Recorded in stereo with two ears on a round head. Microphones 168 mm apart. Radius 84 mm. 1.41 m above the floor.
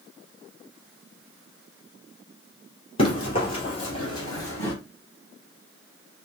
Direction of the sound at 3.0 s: 30° left (ahead or behind).